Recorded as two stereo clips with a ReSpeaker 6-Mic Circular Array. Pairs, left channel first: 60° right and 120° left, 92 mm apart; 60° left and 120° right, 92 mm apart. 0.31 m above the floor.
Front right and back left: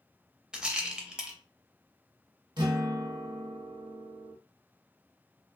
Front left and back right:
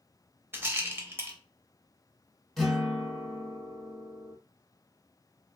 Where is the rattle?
165° right, 0.5 m.